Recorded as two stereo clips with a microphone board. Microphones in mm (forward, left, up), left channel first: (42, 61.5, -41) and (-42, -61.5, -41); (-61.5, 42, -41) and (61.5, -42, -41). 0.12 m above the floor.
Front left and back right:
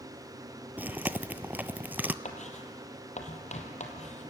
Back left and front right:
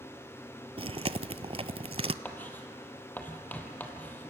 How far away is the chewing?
About 0.5 m.